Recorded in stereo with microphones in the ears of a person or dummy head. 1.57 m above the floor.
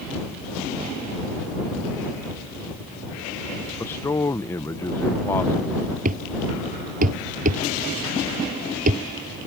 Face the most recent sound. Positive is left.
turn(degrees=-45)  # may be behind; listen again after turning